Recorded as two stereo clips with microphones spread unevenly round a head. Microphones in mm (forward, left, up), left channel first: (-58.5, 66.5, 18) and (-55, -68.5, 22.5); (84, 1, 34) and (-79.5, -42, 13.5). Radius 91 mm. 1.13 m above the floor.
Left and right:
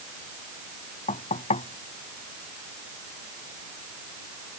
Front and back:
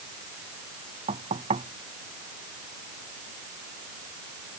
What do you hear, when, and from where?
1.1 s knocking: 130° left